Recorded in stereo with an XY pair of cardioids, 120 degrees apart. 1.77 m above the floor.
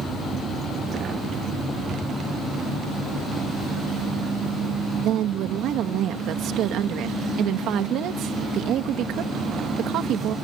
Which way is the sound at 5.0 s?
70° right.